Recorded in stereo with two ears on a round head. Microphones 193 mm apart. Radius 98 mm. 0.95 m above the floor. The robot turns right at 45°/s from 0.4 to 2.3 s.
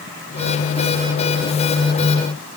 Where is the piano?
I don't hear a piano.